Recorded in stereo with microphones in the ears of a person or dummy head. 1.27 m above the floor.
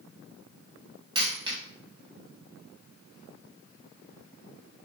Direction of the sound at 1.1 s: 25° right (ahead or behind).